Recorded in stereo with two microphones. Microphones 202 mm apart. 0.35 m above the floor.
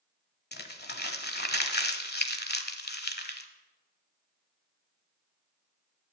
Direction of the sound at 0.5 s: 55° left (ahead or behind).